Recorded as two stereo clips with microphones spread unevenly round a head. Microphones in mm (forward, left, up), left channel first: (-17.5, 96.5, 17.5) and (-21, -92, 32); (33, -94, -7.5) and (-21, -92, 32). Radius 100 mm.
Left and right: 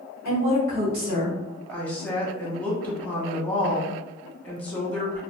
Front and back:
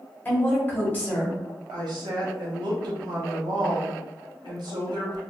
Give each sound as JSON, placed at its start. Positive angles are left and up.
{"t": 0.2, "sound": "a woman speaking", "azimuth_deg": -50, "distance_m": 1.4}
{"t": 1.7, "sound": "a woman speaking", "azimuth_deg": 170, "distance_m": 1.1}